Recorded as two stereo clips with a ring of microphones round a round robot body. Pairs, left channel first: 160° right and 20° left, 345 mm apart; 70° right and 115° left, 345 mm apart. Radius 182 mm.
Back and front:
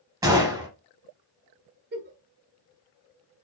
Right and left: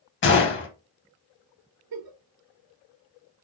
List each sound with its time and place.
0.2 s a gunshot: 50° right, 0.5 m
1.9 s a giggle: 85° left, 0.9 m